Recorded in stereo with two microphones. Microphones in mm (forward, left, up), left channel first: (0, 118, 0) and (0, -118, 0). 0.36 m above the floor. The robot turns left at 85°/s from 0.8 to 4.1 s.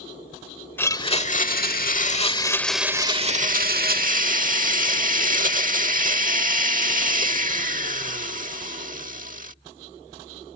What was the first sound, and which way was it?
A blender, 165° left.